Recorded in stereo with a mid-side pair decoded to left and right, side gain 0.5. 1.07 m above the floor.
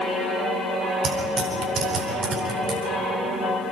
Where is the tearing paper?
55° right, 8.5 m.